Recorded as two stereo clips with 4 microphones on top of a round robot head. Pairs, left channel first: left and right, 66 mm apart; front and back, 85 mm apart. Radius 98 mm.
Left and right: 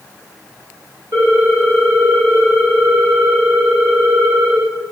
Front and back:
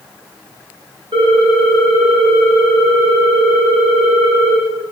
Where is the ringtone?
145° right, 0.6 m.